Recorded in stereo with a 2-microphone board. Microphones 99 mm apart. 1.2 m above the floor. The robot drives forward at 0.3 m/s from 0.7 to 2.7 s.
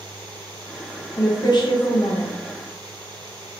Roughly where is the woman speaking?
Left.